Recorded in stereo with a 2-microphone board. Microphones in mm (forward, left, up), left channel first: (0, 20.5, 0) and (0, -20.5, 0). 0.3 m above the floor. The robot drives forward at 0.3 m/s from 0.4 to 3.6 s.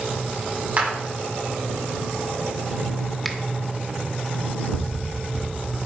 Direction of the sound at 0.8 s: 40° right (ahead or behind).